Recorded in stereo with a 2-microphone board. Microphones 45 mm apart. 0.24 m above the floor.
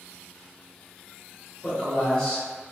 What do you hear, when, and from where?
1.6 s a man speaking: 15° left (ahead or behind), 1.6 m